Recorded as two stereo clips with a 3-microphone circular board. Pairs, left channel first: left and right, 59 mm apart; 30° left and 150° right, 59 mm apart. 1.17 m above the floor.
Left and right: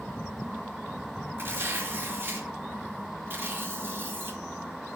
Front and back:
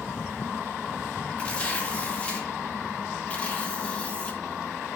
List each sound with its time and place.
1.4 s tearing paper: 35° right, 2.5 m